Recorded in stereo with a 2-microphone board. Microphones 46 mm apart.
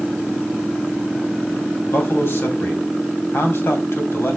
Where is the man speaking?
60° left (ahead or behind), 3 m.